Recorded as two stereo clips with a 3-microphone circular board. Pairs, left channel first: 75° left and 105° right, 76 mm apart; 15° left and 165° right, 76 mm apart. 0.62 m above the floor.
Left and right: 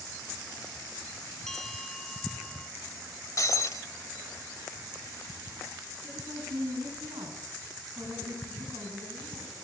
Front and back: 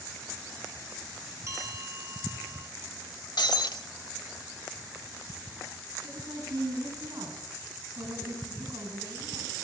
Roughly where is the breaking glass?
Ahead left.